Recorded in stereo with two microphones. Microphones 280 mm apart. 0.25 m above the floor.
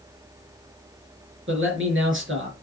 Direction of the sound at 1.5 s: 45° right (ahead or behind).